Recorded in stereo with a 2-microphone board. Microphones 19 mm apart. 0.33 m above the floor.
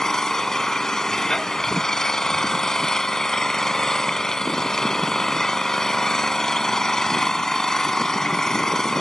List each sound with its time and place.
0.0 s an engine running: 30° left (ahead or behind), 0.8 m